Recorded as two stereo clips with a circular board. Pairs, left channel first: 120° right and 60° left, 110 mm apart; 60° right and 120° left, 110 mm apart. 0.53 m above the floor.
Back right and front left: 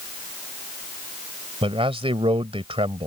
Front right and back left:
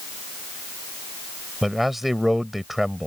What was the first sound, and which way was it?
A man speaking, 30° left.